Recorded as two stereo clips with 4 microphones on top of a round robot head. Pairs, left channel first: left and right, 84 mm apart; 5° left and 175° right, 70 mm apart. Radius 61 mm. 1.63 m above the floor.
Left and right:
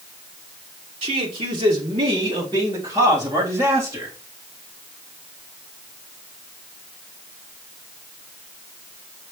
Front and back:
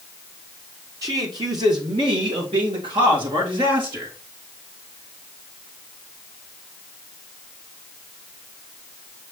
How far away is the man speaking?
About 2.0 m.